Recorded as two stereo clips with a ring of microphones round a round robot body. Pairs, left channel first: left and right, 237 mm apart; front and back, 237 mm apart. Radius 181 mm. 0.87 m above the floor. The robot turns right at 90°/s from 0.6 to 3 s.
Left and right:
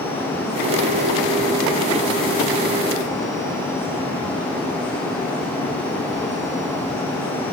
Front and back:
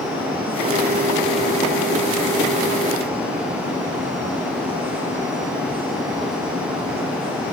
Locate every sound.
Only background noise.